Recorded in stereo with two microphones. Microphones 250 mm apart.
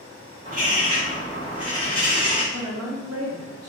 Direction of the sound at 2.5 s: 65° right (ahead or behind).